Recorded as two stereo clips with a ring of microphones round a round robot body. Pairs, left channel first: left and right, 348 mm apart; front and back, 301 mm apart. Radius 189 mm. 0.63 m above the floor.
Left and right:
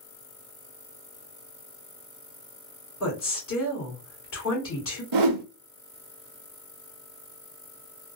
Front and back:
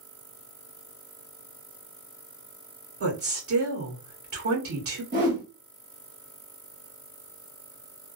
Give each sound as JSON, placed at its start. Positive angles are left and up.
{"t": 3.0, "sound": "a woman speaking", "azimuth_deg": 140, "distance_m": 2.5}
{"t": 5.1, "sound": "a whoosh", "azimuth_deg": -115, "distance_m": 0.5}